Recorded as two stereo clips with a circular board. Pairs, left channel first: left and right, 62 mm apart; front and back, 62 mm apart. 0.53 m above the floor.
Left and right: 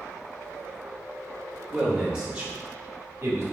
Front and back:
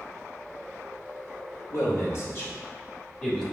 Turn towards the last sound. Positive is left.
turn(degrees=-75)